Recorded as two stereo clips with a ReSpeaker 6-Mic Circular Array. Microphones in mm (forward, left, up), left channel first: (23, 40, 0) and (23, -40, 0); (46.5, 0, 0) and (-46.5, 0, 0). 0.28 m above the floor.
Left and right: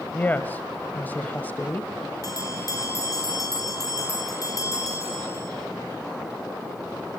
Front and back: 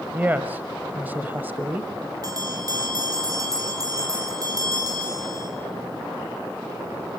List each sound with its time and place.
0.1 s a woman speaking: 130° left, 1.0 m
2.2 s a bell: 135° left, 6.5 m